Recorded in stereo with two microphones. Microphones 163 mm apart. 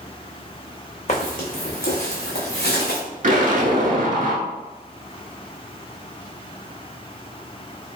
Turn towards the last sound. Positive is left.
turn(degrees=-55)  # may be behind; listen again after turning